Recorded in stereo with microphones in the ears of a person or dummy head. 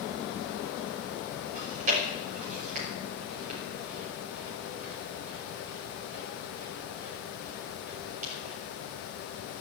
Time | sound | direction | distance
1.6 | chewing | 40° right (ahead or behind) | 5.5 m